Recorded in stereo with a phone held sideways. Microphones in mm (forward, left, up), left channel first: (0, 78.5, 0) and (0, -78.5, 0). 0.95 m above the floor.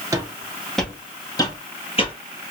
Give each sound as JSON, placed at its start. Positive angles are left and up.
{"t": 0.1, "sound": "footsteps", "side_deg": -20, "distance_m": 1.0}